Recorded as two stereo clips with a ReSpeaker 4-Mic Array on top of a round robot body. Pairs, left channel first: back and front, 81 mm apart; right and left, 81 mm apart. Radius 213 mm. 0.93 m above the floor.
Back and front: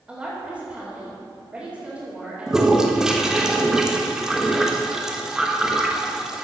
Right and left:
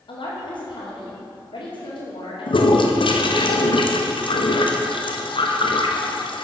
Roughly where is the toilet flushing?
Right.